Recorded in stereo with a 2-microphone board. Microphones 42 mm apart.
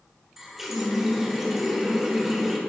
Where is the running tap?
10° right (ahead or behind), 1.2 m.